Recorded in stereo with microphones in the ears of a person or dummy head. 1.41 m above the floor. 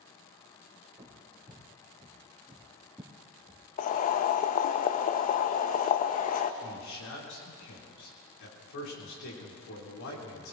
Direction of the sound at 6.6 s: 70° left (ahead or behind).